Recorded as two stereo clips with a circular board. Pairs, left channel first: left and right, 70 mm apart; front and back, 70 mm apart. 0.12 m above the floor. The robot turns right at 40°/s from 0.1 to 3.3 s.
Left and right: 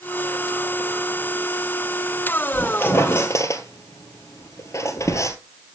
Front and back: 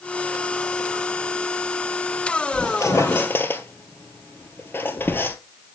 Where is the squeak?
25° left, 1.4 m; by 5.4 s 55° left, 1.4 m.